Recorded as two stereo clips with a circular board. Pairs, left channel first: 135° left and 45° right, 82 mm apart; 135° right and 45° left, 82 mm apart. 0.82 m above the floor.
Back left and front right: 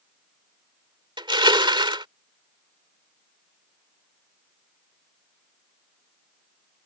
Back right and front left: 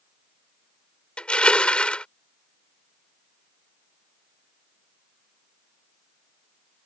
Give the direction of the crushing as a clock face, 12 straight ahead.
2 o'clock.